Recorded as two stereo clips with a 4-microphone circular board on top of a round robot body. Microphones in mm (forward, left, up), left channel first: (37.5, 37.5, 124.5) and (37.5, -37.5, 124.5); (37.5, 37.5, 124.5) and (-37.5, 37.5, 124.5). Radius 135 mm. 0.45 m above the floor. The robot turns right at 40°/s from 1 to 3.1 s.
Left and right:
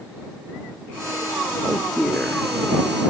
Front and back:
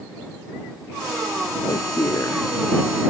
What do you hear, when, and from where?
1.6 s a man speaking: 5° right; by 2.5 s 25° left